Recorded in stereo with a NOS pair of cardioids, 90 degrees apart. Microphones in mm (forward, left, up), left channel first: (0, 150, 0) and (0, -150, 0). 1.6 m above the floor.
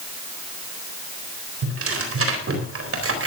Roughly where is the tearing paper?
Ahead right.